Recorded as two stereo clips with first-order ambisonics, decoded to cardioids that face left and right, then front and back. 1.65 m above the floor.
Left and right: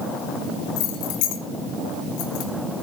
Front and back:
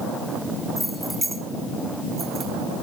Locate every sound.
0.8 s keys jangling: 85° left, 2 m; by 2.5 s 110° left, 2.5 m